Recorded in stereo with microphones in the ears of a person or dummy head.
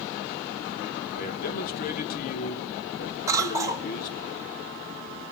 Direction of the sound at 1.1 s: 55° left (ahead or behind).